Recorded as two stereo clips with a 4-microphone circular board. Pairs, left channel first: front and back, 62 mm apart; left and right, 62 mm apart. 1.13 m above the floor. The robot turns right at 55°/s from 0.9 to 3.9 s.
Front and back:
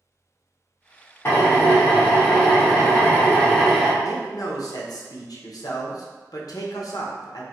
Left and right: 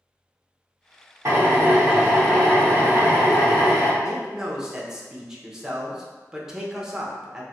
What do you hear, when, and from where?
1.2 s a drill: 50° right, 0.9 m; by 3.9 s 95° left, 0.9 m
4.0 s a man speaking: 10° right, 0.6 m